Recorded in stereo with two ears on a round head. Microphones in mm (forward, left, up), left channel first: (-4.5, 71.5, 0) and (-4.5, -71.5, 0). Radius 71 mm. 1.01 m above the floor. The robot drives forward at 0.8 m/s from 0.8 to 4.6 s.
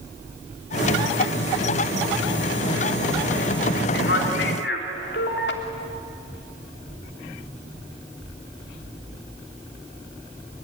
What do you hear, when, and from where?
3.9 s a man speaking: 75° left (ahead or behind), 3 m